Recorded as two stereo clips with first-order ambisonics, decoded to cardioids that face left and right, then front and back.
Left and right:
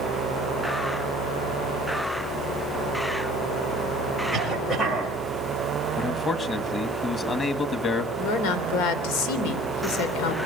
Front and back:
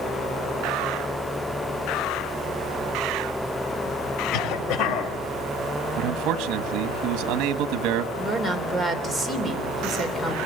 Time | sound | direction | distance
4.3 | a cough | 5° left | 6 m
6.0 | a man speaking | 155° left | 1.7 m
8.2 | a woman speaking | 85° left | 3 m